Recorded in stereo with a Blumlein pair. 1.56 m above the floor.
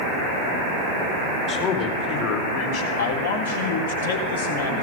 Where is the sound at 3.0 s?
65° left, 4 m.